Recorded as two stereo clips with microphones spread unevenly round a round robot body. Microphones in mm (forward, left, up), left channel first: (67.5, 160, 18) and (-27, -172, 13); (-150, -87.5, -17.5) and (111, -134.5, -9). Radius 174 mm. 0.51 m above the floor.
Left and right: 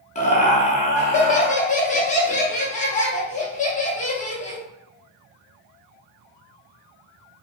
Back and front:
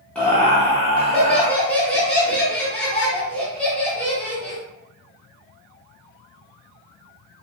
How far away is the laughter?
About 0.7 m.